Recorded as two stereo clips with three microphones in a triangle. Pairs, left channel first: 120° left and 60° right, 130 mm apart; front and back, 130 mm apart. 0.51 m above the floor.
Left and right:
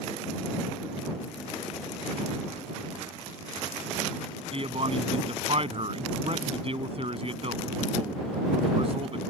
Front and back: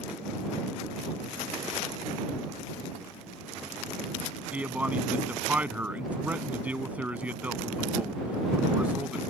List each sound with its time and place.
4.5 s a man speaking: 100° right